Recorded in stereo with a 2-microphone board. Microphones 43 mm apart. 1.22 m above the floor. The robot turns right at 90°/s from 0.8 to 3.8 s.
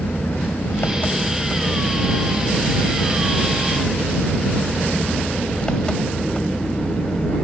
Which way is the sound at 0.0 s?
115° left.